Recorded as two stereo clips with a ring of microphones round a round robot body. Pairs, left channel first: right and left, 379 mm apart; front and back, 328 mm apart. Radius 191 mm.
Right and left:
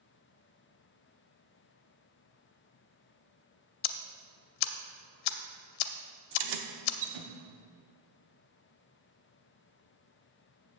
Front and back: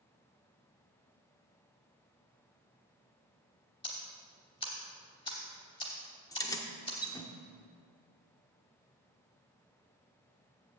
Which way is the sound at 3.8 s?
80° right.